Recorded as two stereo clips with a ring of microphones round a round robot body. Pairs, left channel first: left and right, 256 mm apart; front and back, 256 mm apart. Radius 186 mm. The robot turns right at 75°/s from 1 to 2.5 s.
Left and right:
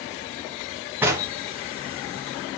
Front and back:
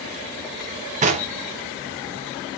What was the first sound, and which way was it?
Knocking, 165° right.